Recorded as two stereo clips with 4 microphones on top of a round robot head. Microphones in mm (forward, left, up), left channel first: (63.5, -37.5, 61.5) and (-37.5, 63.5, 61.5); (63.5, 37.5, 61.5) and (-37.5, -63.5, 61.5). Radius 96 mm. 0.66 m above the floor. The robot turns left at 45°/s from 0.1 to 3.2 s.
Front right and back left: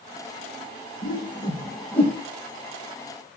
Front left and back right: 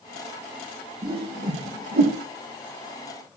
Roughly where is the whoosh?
Right.